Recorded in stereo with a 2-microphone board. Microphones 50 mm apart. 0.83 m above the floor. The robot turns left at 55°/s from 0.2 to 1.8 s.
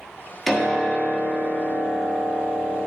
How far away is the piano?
About 1.5 m.